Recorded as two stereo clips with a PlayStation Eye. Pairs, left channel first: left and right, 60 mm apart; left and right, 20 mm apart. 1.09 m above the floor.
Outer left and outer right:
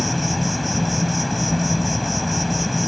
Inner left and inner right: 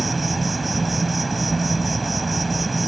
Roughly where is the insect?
Centre.